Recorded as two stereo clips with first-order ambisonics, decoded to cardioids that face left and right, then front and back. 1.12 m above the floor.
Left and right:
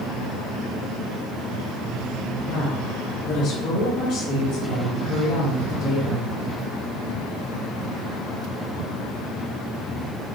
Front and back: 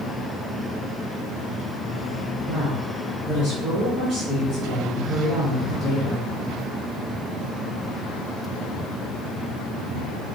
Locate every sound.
2.5 s a woman speaking: 110° left, 1.5 m